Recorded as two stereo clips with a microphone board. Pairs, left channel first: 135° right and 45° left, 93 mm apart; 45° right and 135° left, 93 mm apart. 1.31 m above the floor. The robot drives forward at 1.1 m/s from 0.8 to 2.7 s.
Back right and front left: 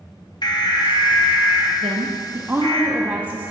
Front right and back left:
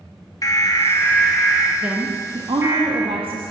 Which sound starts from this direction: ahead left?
A woman speaking, at 1.8 s.